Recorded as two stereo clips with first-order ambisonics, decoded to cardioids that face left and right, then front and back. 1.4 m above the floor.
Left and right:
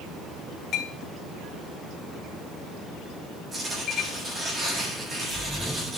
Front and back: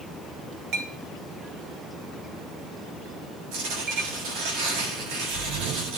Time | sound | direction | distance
0.7 | a clink | 145° left | 2.5 m
3.5 | tearing paper | 160° right | 8 m